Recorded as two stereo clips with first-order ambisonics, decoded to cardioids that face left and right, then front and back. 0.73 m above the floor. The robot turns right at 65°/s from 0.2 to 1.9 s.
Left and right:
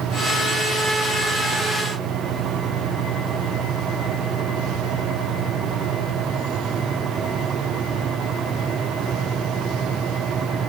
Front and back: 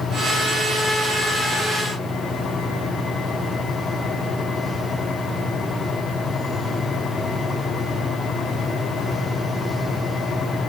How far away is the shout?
No shout in this recording.